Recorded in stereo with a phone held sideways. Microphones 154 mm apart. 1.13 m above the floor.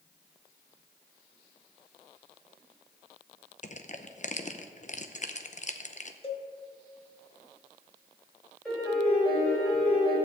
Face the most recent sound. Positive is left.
turn(degrees=5)  # may be behind; listen again after turning